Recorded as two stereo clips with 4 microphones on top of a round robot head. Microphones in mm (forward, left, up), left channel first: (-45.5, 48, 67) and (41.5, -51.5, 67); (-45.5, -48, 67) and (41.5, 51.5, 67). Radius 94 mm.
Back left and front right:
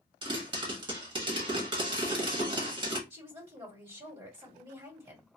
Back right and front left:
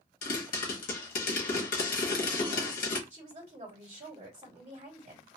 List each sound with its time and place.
0.2 s a pop: 105° right, 0.9 m
3.1 s a woman speaking: 5° left, 1.6 m